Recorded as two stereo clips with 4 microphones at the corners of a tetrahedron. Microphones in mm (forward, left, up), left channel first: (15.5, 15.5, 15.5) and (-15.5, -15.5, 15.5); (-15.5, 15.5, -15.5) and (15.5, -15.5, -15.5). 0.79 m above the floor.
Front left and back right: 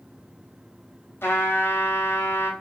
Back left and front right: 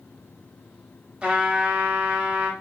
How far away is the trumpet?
About 0.7 m.